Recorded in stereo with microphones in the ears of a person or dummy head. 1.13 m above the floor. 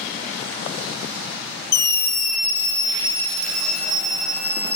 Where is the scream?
55° left (ahead or behind), 1.1 m; by 4.8 s 15° right (ahead or behind), 1.7 m.